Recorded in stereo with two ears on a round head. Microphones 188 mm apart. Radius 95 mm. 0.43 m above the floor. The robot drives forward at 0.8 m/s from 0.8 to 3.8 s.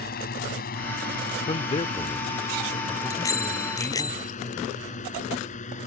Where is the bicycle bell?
15° left (ahead or behind).